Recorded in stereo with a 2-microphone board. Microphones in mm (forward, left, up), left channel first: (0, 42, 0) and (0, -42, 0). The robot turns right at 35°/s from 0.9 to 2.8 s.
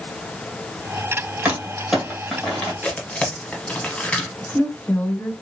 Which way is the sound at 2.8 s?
15° left (ahead or behind).